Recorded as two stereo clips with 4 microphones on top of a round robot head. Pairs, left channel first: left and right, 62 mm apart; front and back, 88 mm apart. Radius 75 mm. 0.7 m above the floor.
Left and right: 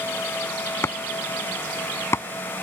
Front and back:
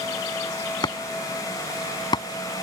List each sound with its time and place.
0.8 s chopping: 40° left